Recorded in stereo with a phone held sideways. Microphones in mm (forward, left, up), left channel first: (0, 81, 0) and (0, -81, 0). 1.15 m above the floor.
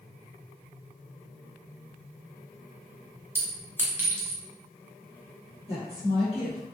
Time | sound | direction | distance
3.4 | a clink | 15° right (ahead or behind) | 0.6 m
5.7 | a woman speaking | 40° left (ahead or behind) | 1.0 m